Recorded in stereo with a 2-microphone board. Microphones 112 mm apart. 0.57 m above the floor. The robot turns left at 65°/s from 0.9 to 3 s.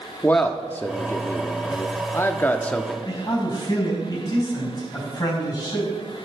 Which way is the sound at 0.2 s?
15° left (ahead or behind).